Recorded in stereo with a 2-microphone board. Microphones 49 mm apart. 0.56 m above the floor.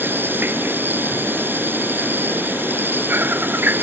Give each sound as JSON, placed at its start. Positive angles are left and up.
{"t": 0.0, "sound": "an insect", "side_deg": -45}